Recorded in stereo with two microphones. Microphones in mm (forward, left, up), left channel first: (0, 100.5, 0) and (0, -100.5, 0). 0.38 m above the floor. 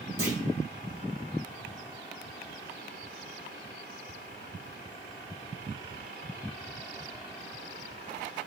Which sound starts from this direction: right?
A clunk, at 0.2 s.